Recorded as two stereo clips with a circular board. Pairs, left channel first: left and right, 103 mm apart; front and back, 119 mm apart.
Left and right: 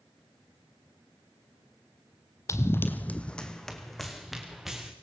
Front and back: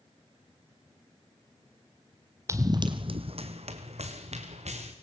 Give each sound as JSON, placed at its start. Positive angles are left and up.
{"t": 2.5, "sound": "running footsteps", "azimuth_deg": 130, "distance_m": 1.4}